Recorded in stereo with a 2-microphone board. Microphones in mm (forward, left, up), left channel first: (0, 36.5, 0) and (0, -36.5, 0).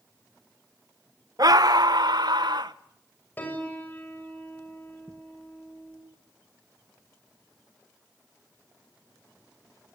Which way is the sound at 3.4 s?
25° left (ahead or behind).